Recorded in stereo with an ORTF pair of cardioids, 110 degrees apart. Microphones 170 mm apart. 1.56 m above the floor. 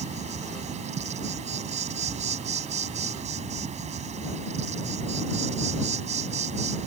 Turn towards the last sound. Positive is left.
turn(degrees=-40)